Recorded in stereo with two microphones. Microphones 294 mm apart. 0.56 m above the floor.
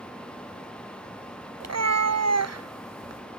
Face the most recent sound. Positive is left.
turn(degrees=-60)  # may be behind; listen again after turning